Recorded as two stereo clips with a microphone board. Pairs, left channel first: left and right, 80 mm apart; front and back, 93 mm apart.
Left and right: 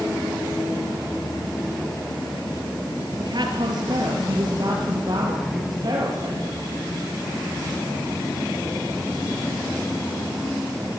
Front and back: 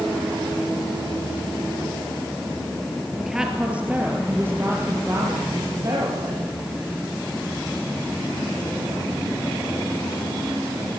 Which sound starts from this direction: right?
A woman speaking, at 3.2 s.